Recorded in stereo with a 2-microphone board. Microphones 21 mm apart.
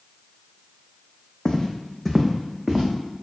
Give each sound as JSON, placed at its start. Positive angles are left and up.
{"t": 1.4, "sound": "footsteps", "side_deg": 35, "distance_m": 0.7}